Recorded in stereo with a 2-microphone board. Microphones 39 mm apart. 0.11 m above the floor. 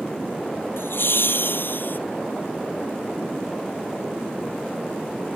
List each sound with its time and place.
0.8 s laughter: 65° left (ahead or behind); by 2.0 s 55° left (ahead or behind)